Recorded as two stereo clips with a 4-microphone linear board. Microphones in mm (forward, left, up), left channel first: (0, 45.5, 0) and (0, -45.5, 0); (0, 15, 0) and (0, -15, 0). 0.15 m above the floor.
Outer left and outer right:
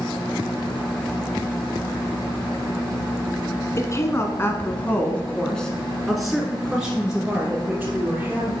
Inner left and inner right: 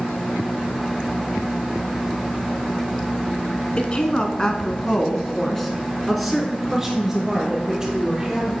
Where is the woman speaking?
35° left (ahead or behind), 1.2 m; by 8.5 s 15° right (ahead or behind), 2.5 m.